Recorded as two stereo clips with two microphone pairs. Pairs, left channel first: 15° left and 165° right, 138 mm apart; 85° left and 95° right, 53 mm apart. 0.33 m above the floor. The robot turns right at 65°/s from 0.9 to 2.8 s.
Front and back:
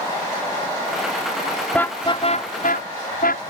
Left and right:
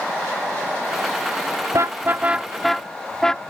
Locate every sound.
1.7 s a car horn: 65° right; by 3.4 s 5° left